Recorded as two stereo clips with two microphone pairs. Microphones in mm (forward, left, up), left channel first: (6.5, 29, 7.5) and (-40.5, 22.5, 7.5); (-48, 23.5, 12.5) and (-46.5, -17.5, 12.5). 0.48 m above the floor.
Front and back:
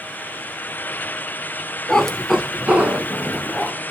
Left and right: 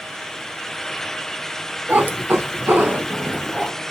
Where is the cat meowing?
65° right, 0.5 m; by 3.7 s 135° right, 1.1 m.